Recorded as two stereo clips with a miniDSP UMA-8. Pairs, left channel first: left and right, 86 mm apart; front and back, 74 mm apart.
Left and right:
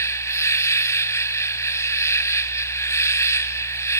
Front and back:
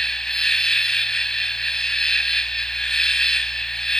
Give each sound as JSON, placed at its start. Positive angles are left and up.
{"t": 0.0, "sound": "an insect", "azimuth_deg": 75, "distance_m": 0.8}